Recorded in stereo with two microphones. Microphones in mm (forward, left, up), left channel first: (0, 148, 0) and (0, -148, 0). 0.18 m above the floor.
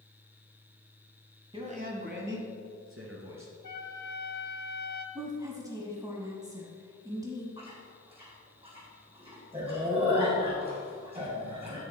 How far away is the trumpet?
About 0.8 m.